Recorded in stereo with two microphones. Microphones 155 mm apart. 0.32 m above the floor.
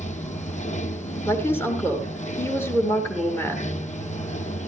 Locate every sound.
0.0 s running water: 50° left (ahead or behind), 1.6 m
1.3 s a woman speaking: 15° left (ahead or behind), 6.5 m